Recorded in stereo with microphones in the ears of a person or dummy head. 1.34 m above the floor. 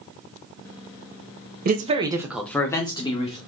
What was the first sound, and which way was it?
A man speaking, 45° right (ahead or behind).